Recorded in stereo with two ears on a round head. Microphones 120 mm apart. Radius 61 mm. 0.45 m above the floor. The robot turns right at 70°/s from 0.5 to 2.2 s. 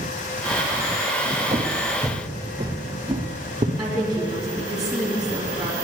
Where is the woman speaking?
5° right (ahead or behind), 3.5 m.